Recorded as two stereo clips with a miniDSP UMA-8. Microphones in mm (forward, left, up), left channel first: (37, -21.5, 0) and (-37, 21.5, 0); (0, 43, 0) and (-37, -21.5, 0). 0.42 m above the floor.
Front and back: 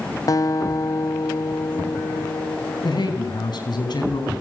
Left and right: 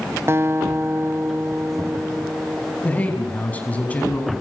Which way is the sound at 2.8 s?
10° right.